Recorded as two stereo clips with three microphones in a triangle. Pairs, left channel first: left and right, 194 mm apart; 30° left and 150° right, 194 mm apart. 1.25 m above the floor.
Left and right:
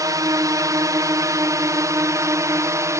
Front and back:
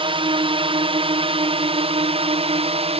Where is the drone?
140° right; by 3.0 s 150° right.